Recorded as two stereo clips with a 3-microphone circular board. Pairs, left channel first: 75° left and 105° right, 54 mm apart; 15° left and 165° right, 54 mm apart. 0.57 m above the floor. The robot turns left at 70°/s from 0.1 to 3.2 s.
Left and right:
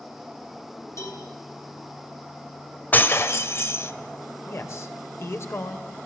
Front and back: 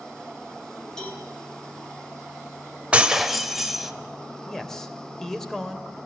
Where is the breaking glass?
130° left, 1.2 m; by 3.9 s 110° left, 1.2 m.